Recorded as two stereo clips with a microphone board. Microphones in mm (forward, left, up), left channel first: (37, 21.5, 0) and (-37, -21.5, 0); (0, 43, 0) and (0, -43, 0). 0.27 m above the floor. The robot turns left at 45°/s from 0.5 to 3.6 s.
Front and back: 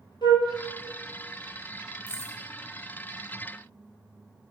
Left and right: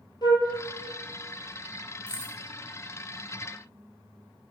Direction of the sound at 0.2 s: 55° left.